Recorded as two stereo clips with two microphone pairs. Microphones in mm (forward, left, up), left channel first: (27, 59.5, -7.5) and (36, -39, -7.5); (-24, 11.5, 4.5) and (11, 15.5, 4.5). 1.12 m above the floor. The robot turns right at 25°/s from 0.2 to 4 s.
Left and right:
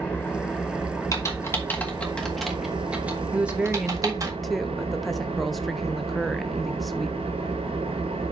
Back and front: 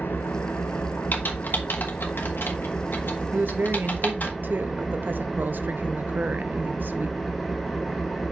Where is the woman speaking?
10° right, 0.8 m; by 7.2 s 5° left, 0.8 m.